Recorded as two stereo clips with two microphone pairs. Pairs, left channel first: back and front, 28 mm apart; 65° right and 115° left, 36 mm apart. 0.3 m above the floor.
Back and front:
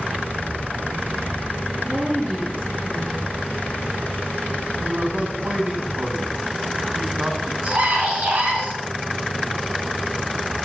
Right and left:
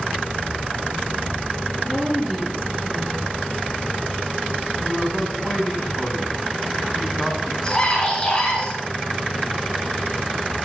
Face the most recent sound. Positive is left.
turn(degrees=0)